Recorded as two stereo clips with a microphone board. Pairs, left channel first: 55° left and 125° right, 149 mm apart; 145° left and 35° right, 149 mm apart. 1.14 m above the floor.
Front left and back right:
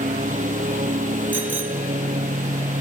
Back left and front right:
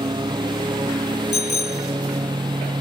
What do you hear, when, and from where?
0.0 s a lawn mower: 95° right
1.3 s a bicycle bell: 155° left